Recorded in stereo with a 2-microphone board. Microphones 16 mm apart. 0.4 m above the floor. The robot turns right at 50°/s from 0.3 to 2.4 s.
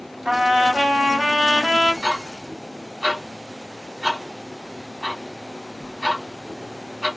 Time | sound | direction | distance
0.2 | a trumpet | 105° right | 2.5 m
2.0 | ticking | 50° right (ahead or behind) | 2 m